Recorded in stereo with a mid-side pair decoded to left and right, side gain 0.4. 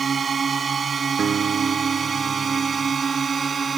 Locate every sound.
0.0 s a drone: 45° right; by 3.8 s 40° right
1.2 s a guitar: 50° right